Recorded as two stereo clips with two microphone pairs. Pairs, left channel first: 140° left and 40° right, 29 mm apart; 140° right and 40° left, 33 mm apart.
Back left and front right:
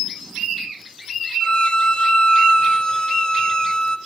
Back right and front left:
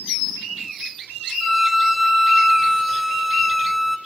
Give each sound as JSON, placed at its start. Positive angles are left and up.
{"t": 1.4, "sound": "a violin", "azimuth_deg": 130, "distance_m": 1.1}